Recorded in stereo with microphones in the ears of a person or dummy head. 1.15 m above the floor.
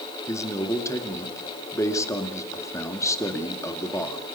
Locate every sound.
0.3 s a man speaking: 15° left (ahead or behind), 2.5 m